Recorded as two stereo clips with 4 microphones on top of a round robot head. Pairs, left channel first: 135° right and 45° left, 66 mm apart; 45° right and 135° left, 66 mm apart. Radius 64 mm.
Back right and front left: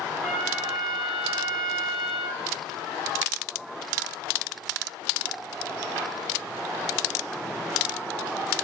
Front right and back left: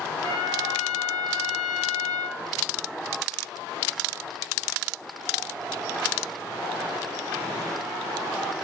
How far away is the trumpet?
About 0.7 m.